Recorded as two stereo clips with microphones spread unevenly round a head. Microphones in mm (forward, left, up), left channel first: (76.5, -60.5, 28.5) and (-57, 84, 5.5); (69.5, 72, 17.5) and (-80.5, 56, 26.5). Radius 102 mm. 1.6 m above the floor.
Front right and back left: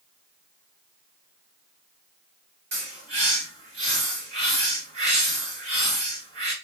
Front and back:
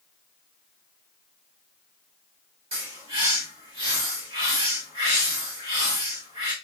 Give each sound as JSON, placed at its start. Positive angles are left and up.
{"t": 2.7, "sound": "a bird", "azimuth_deg": 180, "distance_m": 1.7}